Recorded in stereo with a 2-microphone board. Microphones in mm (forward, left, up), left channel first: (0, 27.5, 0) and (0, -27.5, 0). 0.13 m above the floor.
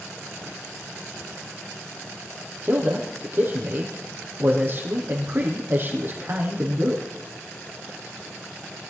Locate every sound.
2.6 s a man speaking: 40° right (ahead or behind), 5 m